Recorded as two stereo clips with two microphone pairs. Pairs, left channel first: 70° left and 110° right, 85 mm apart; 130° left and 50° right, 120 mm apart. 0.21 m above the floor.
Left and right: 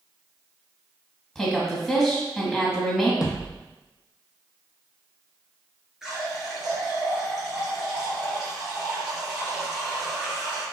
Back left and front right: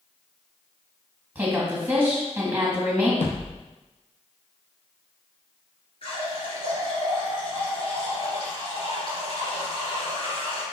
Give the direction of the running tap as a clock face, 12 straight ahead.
6 o'clock.